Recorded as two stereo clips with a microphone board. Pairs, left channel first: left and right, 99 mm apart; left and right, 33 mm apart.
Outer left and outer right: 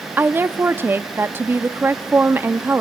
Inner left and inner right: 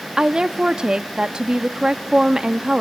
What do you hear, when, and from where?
0.2 s a woman speaking: 20° right (ahead or behind), 0.5 m